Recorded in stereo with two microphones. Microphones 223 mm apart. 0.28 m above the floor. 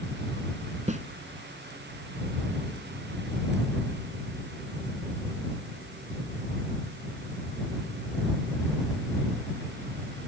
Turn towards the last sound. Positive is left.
turn(degrees=-35)  # may be behind; listen again after turning